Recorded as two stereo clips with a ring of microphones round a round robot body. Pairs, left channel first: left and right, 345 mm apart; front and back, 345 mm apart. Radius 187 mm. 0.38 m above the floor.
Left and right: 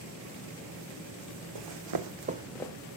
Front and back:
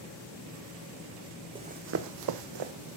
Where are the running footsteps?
105° right, 1.1 m; by 2.7 s 170° left, 1.1 m.